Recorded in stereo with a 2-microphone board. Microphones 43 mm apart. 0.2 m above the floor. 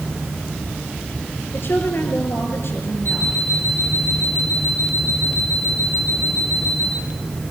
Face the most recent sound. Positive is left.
turn(degrees=60)  # may be behind; listen again after turning